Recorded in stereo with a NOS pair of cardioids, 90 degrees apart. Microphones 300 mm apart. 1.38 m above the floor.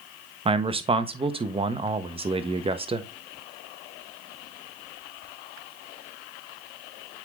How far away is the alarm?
No alarm in this recording.